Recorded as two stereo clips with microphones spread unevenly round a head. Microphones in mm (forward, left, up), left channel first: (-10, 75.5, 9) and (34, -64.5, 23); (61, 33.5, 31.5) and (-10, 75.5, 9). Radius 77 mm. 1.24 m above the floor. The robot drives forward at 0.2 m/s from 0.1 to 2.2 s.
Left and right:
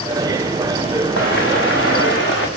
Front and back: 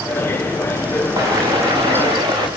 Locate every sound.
1.2 s footsteps: 100° left, 6 m; by 2.5 s 115° left, 6.5 m